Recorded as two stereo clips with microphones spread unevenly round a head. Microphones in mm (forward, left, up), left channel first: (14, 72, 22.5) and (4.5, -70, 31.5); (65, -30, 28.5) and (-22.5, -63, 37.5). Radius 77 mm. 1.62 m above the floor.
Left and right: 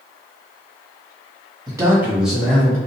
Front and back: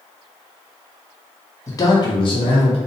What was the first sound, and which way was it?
A man speaking, 40° right.